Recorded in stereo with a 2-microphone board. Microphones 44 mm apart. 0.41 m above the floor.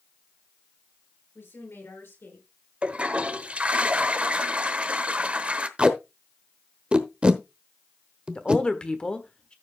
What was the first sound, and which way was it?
A woman speaking, 75° left (ahead or behind).